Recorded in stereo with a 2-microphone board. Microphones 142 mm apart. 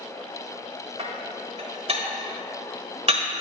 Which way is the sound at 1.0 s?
45° right (ahead or behind).